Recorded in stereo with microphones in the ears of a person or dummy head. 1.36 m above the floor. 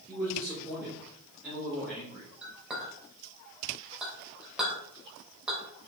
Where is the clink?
5° right (ahead or behind), 3 m.